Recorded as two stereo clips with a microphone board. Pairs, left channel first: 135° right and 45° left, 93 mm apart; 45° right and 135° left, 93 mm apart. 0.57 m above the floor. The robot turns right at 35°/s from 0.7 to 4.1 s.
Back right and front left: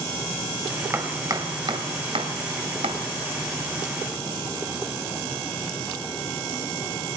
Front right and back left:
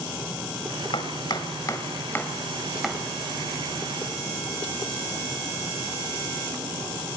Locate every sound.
0.9 s chopping: 20° right, 2.5 m; by 3.0 s 55° left, 2.5 m